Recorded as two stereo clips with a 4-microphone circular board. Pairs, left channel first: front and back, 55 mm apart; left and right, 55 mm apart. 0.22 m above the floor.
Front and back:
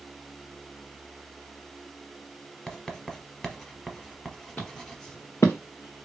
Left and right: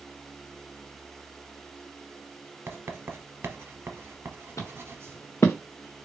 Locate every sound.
2.7 s writing: 70° right, 1.0 m
4.6 s footsteps: 60° left, 1.6 m; by 6.1 s 15° left, 1.1 m